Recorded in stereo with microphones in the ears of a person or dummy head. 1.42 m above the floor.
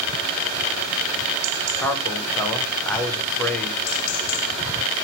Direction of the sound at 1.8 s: 10° left (ahead or behind).